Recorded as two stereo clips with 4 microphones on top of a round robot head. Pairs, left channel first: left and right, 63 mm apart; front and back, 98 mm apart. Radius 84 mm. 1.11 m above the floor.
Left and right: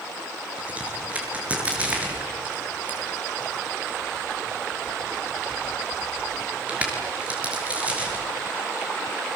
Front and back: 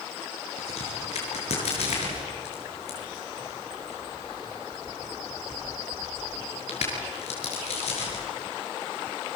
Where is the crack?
20° right, 6 m.